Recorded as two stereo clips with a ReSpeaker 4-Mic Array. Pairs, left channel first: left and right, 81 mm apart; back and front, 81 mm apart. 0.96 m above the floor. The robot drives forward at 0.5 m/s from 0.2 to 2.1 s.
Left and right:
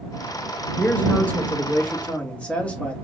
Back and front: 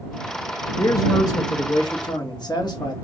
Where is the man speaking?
155° left, 1.3 m; by 3.0 s 165° left, 1.8 m.